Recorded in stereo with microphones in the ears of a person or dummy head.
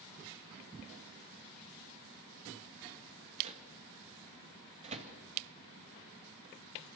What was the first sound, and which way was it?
A microwave, 35° right (ahead or behind).